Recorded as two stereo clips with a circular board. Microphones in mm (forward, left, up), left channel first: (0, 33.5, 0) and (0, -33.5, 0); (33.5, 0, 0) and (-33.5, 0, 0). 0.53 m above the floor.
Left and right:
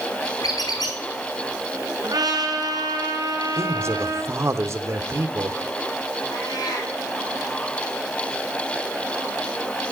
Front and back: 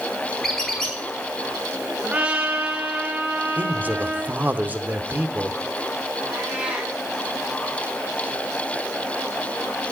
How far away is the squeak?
About 4 m.